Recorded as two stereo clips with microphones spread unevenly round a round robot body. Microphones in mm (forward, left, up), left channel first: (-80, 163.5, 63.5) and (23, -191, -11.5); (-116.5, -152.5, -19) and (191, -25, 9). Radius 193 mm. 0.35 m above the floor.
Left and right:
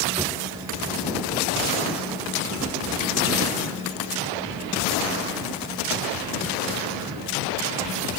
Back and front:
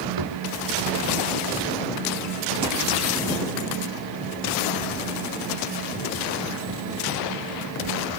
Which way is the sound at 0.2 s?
10° left.